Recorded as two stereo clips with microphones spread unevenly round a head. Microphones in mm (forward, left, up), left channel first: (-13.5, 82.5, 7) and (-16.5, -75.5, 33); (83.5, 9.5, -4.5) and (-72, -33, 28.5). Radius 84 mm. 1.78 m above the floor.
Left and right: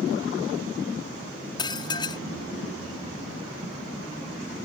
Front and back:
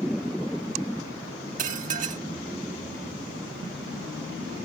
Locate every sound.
1.6 s dishes clattering: 155° left